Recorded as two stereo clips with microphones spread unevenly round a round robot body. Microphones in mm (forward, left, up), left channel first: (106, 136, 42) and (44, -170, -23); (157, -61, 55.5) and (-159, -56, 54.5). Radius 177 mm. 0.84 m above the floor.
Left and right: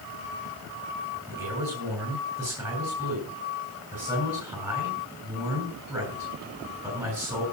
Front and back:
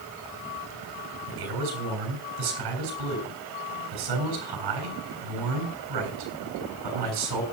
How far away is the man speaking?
About 7 m.